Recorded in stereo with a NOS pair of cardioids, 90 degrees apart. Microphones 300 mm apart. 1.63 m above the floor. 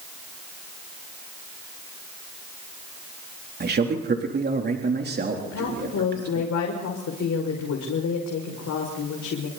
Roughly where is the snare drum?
I don't hear a snare drum.